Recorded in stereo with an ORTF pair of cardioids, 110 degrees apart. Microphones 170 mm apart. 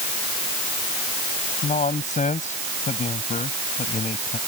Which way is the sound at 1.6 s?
45° left.